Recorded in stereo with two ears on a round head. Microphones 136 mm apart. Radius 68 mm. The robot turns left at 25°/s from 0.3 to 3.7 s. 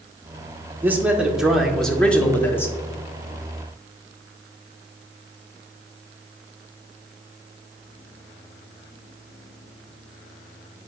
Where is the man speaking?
160° right, 1.0 m; by 2.8 s 155° left, 1.0 m.